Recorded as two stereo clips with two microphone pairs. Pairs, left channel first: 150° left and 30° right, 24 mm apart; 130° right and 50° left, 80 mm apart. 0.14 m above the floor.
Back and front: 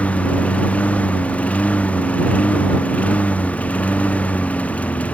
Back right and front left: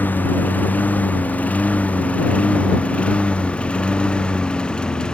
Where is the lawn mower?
165° left; by 5.2 s 155° left.